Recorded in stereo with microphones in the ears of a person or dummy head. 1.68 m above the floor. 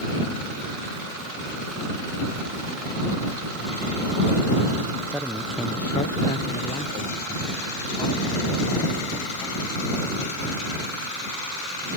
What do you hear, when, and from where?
5.1 s a man speaking: 10° right (ahead or behind); by 9.8 s 25° left (ahead or behind)